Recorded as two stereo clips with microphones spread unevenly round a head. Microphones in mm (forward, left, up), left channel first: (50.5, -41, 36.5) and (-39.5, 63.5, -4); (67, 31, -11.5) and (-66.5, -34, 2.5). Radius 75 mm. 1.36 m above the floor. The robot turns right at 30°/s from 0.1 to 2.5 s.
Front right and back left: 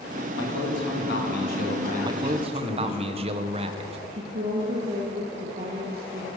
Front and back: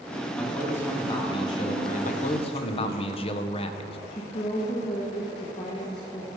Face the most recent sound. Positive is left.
turn(degrees=85)